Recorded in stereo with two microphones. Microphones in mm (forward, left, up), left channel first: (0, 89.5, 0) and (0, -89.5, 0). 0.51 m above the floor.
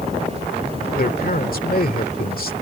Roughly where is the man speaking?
Left.